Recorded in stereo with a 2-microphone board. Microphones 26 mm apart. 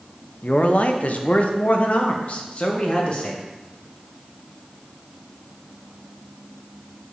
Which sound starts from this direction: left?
A man speaking, at 0.4 s.